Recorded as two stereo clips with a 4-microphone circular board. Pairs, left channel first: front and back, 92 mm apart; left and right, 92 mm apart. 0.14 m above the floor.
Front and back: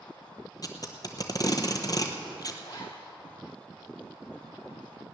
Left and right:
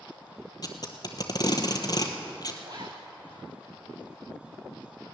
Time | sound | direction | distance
0.6 | tape being pulled | 45° left | 1.2 m
2.6 | a zipper | 45° right | 2.0 m